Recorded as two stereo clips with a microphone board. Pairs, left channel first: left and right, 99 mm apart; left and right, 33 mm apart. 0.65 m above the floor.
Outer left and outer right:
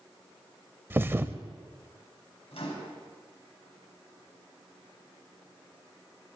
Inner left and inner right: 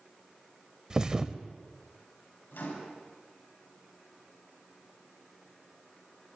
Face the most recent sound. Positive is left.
turn(degrees=80)